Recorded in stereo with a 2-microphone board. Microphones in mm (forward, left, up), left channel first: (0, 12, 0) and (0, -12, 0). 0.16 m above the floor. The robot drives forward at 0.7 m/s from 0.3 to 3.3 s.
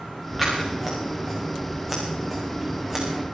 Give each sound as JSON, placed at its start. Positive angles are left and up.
{"t": 0.4, "sound": "scissors", "side_deg": -20, "distance_m": 6.0}